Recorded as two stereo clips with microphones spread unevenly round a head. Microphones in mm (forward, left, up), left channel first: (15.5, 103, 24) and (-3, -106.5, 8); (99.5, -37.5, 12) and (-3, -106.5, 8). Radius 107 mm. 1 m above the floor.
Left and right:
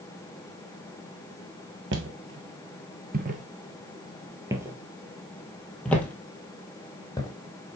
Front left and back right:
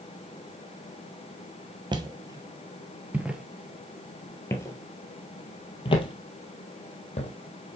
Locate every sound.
1.9 s footsteps: 105° right, 1.4 m; by 7.3 s 15° left, 2 m